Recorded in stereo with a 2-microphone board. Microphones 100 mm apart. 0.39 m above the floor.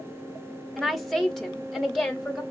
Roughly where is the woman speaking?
Centre.